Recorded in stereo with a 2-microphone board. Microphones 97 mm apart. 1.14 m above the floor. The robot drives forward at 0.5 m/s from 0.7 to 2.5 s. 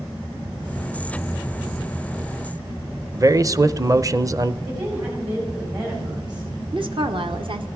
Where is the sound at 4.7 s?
55° right (ahead or behind), 5.5 m.